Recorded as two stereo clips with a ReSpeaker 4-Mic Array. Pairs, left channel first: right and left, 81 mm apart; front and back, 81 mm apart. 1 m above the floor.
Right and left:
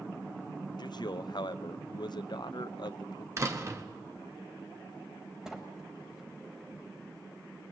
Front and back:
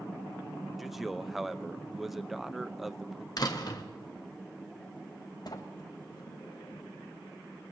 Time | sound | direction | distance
0.8 | a man speaking | 95° right | 0.5 m
3.4 | a door slam | 35° left | 1.1 m
5.5 | a sliding door | 5° left | 1.2 m